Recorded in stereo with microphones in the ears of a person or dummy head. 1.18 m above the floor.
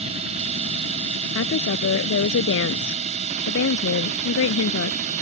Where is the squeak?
No squeak in this recording.